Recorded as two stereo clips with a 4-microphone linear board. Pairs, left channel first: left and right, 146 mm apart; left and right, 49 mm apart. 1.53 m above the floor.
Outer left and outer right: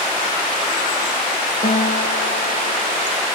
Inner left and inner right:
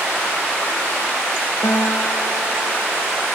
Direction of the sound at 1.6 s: 85° left.